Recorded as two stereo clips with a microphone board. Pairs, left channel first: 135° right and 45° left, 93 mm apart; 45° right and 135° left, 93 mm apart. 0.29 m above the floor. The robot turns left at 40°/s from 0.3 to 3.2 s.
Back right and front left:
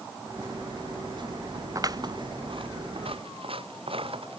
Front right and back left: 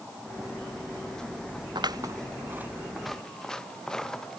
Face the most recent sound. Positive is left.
turn(degrees=40)